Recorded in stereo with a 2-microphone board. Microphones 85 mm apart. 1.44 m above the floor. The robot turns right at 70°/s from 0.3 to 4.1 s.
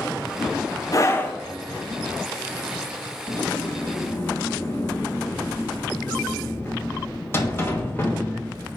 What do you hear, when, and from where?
0.9 s a scream: 135° left, 1.1 m; by 1.4 s 165° left, 1.1 m
3.3 s a sliding door: 95° left, 1.4 m; by 8.8 s 155° left, 1.4 m